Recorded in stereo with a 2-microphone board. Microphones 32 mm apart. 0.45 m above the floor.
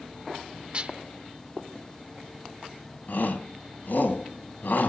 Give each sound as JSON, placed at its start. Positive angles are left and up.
{"t": 0.7, "sound": "dishes clattering", "side_deg": -35, "distance_m": 0.7}
{"t": 3.1, "sound": "a shout", "side_deg": 70, "distance_m": 3.5}